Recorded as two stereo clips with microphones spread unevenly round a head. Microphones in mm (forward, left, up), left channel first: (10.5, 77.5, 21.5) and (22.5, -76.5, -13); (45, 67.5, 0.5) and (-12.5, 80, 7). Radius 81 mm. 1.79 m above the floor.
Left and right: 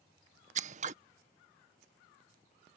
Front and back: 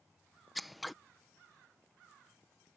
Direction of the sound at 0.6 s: 115° right.